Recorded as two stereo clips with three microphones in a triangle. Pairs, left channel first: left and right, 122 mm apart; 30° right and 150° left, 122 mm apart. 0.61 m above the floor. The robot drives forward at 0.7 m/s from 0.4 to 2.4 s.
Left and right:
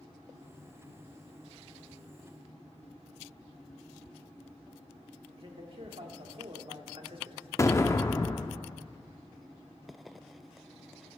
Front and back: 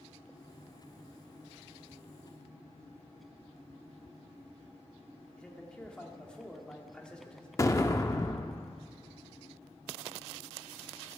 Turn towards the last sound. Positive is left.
turn(degrees=25)